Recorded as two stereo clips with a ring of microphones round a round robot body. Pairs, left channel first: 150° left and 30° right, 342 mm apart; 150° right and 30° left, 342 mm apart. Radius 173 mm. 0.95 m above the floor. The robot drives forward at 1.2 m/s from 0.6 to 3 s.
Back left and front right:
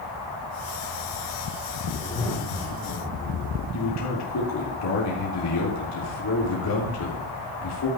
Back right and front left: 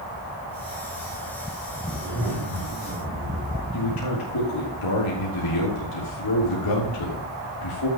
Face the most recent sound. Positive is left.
turn(degrees=-170)